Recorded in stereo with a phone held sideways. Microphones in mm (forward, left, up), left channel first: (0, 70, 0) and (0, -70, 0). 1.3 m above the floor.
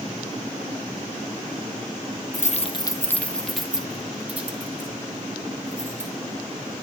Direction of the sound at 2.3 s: 65° left (ahead or behind).